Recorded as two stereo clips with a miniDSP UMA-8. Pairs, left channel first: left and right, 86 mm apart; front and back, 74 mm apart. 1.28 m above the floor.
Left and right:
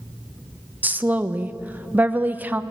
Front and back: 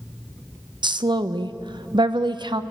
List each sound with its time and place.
0.8 s a woman speaking: 160° right, 1.0 m